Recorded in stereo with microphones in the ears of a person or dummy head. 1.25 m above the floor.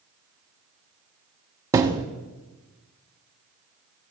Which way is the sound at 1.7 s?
20° right (ahead or behind).